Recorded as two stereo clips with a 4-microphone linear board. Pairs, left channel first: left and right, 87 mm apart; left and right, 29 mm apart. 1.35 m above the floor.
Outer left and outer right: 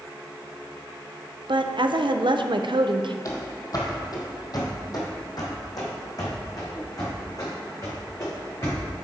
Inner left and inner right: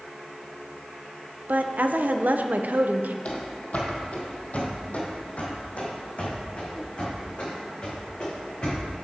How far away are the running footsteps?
About 2.0 m.